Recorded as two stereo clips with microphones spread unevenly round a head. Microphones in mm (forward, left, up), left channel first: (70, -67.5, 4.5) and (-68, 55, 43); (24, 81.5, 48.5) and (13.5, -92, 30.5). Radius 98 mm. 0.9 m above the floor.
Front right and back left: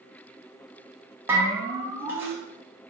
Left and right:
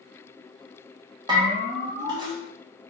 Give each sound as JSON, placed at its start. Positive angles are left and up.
{"t": 1.3, "sound": "a bell", "azimuth_deg": -135, "distance_m": 1.1}